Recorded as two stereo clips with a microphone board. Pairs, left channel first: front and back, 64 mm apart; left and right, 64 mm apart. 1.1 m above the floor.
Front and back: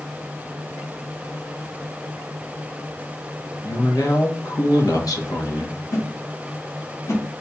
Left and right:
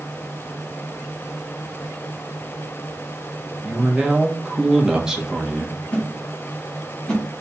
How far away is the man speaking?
About 1.0 m.